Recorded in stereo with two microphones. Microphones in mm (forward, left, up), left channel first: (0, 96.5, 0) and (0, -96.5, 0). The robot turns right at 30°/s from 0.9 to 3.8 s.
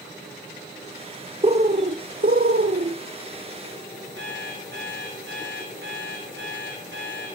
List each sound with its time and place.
1.4 s a bird: 140° right, 0.9 m; by 3.0 s 95° right, 0.9 m
4.2 s an alarm clock: 80° right, 6 m